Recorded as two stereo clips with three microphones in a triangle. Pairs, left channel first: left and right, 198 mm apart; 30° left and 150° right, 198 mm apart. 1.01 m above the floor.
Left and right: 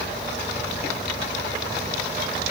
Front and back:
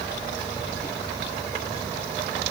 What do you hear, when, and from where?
Only background noise.